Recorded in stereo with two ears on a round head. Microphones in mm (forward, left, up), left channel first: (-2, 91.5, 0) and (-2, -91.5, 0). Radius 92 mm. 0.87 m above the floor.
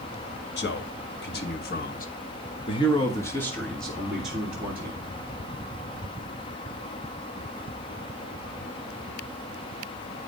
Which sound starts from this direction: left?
A man speaking, at 0.6 s.